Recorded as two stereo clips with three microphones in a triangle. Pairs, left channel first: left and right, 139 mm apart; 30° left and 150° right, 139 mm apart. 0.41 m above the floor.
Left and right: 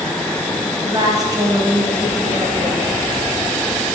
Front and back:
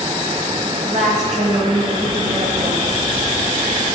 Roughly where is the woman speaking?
Behind right.